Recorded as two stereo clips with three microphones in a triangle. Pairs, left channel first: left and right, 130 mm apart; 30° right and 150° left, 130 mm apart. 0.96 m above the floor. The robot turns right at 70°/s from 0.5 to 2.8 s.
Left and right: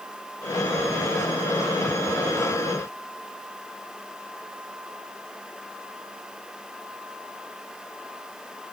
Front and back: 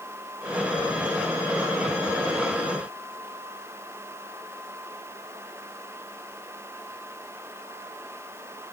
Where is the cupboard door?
No cupboard door in this recording.